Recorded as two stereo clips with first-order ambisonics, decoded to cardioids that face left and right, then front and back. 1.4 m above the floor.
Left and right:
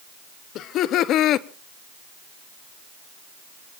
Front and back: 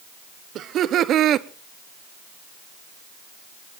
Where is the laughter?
130° left, 0.8 m.